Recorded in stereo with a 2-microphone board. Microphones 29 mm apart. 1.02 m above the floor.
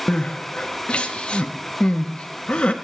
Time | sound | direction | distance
0.1 | crying | 45° left (ahead or behind) | 0.8 m